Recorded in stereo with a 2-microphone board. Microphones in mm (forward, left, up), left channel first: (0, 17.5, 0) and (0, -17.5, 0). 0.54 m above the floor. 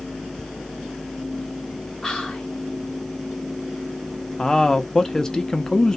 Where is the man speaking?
20° left (ahead or behind), 0.7 m.